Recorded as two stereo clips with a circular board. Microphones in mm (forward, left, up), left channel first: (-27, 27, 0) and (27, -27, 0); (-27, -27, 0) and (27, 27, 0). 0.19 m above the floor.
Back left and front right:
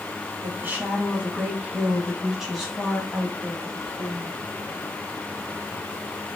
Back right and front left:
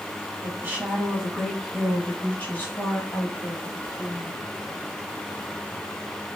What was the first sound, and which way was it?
A woman speaking, straight ahead.